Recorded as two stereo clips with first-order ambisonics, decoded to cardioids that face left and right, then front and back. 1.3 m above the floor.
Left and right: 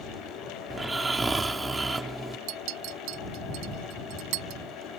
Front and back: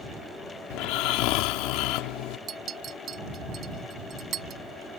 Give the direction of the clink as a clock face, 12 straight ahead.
4 o'clock.